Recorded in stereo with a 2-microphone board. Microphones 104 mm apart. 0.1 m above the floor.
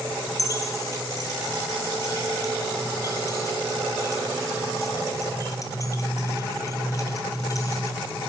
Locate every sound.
0.4 s keys jangling: 35° left (ahead or behind), 1.6 m